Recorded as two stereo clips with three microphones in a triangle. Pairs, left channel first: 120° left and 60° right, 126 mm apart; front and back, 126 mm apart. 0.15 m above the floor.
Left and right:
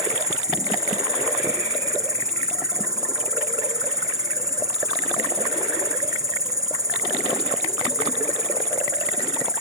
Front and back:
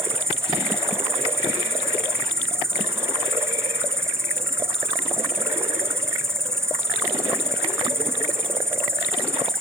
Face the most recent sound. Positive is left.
turn(degrees=-115)